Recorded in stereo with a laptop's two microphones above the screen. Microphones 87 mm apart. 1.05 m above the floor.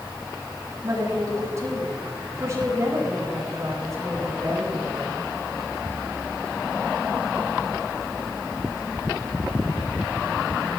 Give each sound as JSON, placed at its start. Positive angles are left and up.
{"t": 0.8, "sound": "a woman speaking", "side_deg": -35, "distance_m": 7.5}